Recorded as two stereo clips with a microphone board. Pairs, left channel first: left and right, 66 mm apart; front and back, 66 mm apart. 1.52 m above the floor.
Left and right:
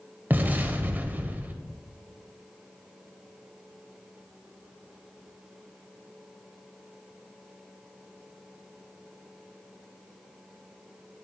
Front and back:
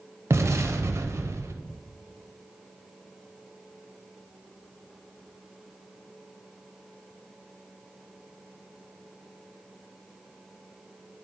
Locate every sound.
0.3 s an explosion: 145° right, 0.5 m